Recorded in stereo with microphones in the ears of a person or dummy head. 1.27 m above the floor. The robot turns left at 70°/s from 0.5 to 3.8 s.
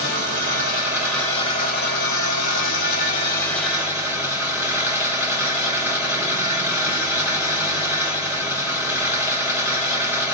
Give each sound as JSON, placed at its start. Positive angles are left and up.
{"t": 0.0, "sound": "an engine running", "azimuth_deg": -140, "distance_m": 1.1}